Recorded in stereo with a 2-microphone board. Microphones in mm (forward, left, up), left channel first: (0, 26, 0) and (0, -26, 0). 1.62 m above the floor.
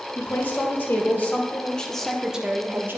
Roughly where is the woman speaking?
Left.